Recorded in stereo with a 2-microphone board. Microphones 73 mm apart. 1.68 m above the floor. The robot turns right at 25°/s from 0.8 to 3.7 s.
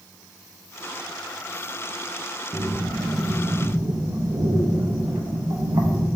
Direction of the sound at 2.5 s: 65° right (ahead or behind).